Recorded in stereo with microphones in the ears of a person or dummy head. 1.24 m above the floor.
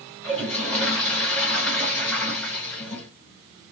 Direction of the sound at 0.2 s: 5° left (ahead or behind).